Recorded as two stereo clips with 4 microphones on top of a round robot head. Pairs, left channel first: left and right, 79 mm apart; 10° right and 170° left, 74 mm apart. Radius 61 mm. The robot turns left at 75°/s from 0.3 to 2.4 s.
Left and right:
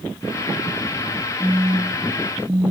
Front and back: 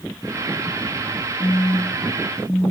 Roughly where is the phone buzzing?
Ahead.